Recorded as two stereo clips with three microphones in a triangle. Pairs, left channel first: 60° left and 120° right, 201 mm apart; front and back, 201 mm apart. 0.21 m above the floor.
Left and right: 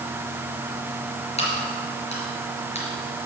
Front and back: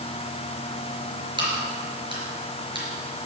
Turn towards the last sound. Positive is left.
turn(degrees=115)